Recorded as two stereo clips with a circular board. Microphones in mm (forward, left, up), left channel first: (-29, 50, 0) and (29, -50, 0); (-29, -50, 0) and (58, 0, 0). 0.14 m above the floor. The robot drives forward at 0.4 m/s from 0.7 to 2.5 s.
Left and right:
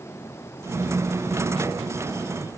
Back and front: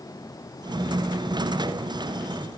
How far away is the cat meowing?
I don't hear a cat meowing.